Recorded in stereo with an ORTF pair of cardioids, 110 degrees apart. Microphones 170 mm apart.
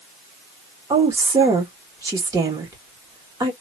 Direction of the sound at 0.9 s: 20° right.